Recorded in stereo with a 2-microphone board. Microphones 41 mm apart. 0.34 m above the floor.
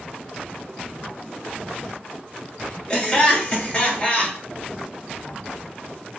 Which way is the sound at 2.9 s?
20° left (ahead or behind).